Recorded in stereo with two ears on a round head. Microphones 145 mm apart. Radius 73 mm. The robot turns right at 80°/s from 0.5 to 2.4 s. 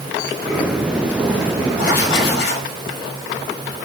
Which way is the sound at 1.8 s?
50° left.